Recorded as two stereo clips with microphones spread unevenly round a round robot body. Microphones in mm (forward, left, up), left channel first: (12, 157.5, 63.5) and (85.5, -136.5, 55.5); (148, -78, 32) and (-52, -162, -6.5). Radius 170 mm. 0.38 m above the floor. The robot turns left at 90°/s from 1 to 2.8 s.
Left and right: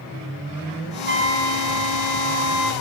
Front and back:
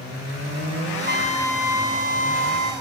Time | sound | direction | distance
1.1 | a trumpet | 20° right | 3 m